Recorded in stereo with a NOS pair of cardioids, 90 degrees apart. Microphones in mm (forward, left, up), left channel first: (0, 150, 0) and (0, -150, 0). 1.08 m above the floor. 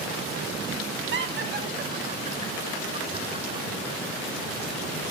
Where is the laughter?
45° right, 2 m; by 3.7 s 20° right, 4.5 m.